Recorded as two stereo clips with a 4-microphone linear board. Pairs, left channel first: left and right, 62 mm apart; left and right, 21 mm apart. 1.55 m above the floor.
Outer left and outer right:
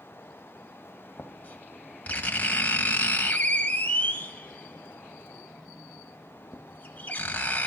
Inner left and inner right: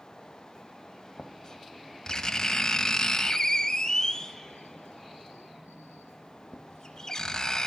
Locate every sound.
1.2 s writing: 25° left (ahead or behind), 1.7 m